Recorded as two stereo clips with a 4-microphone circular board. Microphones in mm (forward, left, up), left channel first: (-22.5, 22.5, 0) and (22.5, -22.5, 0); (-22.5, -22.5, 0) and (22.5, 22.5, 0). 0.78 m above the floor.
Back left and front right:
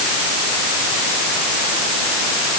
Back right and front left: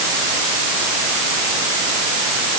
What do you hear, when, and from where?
Only background noise.